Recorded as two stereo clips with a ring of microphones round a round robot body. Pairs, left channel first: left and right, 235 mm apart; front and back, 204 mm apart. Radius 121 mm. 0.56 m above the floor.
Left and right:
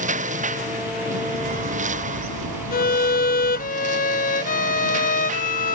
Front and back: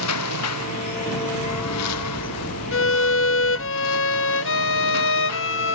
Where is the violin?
30° left.